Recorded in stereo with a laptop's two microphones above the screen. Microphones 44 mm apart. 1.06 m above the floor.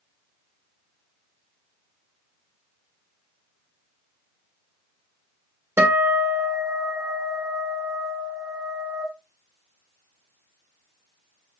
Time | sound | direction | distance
5.8 | a guitar | 70° right (ahead or behind) | 2 m